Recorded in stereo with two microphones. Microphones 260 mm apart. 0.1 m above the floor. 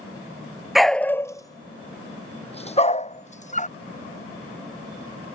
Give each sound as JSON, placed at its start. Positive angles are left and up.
{"t": 0.8, "sound": "a dog barking", "side_deg": 0}